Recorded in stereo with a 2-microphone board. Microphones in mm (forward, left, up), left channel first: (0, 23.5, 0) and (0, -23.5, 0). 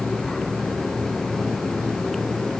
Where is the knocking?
No knocking in this recording.